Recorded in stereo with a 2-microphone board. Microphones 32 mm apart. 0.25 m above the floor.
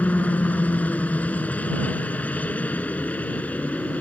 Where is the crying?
No crying in this recording.